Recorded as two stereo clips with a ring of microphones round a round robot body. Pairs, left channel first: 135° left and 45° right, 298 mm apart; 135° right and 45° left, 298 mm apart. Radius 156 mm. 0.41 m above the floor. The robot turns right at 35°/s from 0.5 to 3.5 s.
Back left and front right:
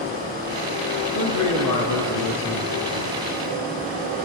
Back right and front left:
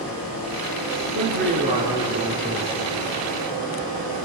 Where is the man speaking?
95° left, 5.5 m; by 3.2 s 165° left, 5.5 m.